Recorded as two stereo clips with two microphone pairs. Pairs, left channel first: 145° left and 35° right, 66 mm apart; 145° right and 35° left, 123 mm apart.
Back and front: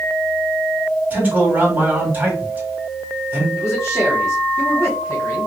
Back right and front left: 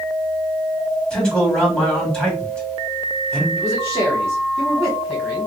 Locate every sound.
1.1 s a man speaking: 70° right, 1.6 m
3.6 s a man speaking: 130° left, 1.4 m